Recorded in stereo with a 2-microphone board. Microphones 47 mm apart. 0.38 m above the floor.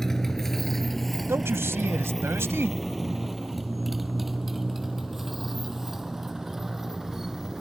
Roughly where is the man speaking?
Right.